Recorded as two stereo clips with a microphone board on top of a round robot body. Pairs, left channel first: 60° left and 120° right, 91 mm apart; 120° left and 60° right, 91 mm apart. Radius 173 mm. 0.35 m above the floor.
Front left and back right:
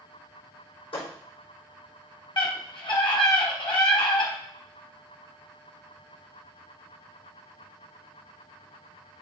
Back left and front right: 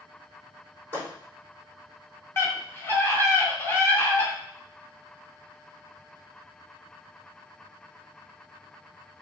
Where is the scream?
60° left, 3 m.